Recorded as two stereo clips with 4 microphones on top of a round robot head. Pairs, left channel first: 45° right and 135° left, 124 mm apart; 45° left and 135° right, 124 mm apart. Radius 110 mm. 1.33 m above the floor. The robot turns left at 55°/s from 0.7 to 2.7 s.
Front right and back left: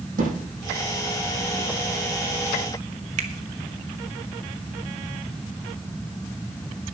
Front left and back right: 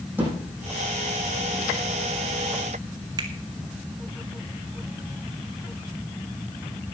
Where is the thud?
150° left, 7.5 m.